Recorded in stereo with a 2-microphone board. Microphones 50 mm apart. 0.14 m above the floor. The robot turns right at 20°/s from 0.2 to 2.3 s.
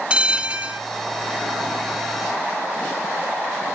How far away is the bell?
About 0.7 m.